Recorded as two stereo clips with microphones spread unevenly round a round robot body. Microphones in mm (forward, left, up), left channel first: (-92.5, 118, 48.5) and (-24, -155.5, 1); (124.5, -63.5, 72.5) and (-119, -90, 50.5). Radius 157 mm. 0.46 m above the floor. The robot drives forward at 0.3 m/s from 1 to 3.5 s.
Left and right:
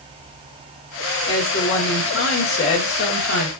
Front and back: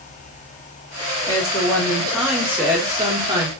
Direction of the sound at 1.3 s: 80° left.